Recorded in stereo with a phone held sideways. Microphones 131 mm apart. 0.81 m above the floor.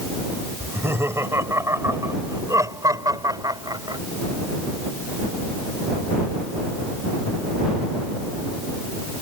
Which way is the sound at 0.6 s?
20° right (ahead or behind).